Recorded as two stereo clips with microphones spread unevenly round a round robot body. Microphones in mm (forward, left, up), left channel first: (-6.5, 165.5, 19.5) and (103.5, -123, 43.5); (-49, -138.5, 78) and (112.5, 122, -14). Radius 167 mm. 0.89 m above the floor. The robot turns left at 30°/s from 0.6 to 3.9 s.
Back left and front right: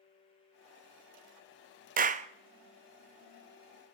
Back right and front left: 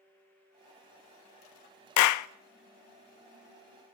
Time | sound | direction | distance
2.0 | a clap | 120° right | 0.5 m